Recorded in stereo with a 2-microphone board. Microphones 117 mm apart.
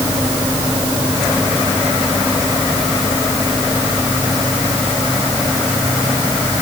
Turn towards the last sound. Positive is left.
No sound to turn to.